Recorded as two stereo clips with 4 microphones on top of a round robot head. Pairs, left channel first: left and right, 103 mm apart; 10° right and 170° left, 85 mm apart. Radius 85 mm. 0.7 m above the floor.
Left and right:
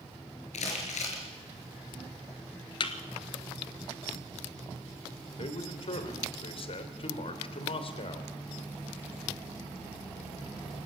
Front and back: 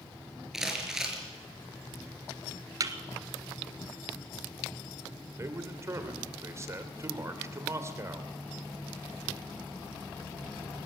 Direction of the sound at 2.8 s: 125° left.